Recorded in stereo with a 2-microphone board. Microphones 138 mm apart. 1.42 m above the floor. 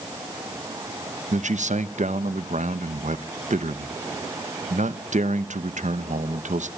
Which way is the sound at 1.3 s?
60° right (ahead or behind).